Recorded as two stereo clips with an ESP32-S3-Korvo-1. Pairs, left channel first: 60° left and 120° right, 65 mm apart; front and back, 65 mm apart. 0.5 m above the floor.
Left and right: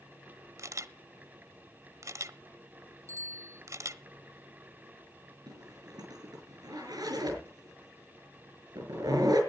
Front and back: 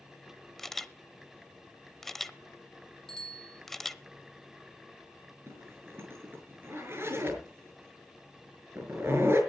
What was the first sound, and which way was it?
A camera shutter, 85° right.